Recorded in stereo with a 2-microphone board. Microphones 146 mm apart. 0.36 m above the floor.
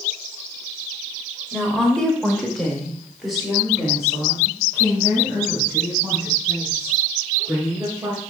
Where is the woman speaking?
5° left (ahead or behind), 1.2 m; by 8.2 s 5° right (ahead or behind), 4.5 m.